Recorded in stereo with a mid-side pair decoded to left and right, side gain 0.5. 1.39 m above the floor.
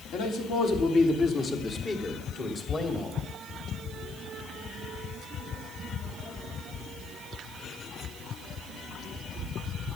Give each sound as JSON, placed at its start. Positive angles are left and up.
{"t": 0.1, "sound": "a man speaking", "azimuth_deg": 65, "distance_m": 3.5}